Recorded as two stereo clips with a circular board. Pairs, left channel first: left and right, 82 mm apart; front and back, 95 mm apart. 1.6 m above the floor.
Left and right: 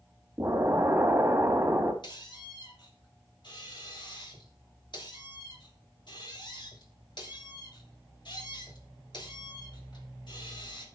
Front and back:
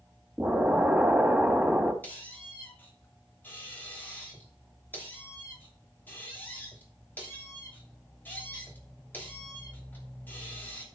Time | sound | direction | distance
0.4 | an explosion | 125° right | 1.7 m
2.0 | a squeak | 70° left | 3 m